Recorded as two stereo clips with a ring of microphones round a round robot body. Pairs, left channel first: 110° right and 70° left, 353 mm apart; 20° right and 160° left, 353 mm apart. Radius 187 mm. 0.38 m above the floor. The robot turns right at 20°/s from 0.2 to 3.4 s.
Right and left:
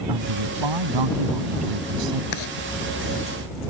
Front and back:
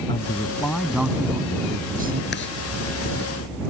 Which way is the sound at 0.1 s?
55° left.